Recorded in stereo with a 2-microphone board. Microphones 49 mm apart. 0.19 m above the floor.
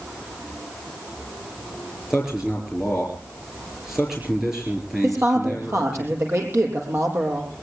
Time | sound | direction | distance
2.1 | a man speaking | 10° right (ahead or behind) | 4 m
5.0 | a woman speaking | 60° right (ahead or behind) | 6 m